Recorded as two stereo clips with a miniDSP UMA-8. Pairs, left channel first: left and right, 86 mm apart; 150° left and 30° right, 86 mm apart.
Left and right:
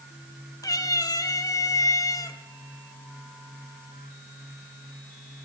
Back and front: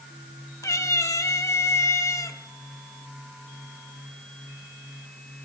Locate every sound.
0.6 s a cat meowing: 110° left, 0.8 m